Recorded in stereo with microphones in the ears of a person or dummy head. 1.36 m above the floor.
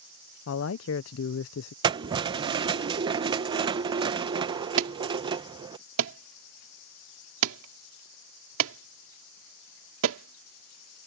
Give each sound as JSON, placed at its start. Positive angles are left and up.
{"t": 0.5, "sound": "a man speaking", "side_deg": 70}
{"t": 1.8, "sound": "keys jangling", "side_deg": -25}
{"t": 4.8, "sound": "an alarm", "side_deg": -80}